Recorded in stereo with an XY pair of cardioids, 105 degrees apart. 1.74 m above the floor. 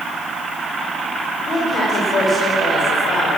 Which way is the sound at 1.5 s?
45° left.